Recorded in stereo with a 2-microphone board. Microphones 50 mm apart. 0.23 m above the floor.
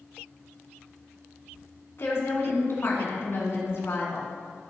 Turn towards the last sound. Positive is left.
turn(degrees=55)  # may be behind; listen again after turning